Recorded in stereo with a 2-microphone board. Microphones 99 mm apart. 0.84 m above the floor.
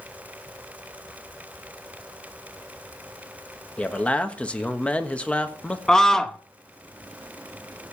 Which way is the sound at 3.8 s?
15° left (ahead or behind).